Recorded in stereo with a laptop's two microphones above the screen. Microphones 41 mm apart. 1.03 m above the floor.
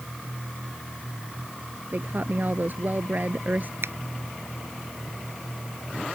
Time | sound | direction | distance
1.9 | a woman speaking | 50° right (ahead or behind) | ?
3.8 | a finger snap | 85° right | ?